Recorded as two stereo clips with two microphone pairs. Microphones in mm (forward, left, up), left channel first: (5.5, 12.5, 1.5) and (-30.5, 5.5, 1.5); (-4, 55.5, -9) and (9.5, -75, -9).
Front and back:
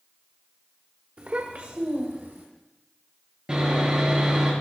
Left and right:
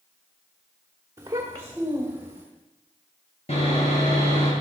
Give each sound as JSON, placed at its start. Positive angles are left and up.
{"t": 1.2, "sound": "a child speaking", "azimuth_deg": -145, "distance_m": 1.3}
{"t": 3.5, "sound": "sawing", "azimuth_deg": 130, "distance_m": 7.0}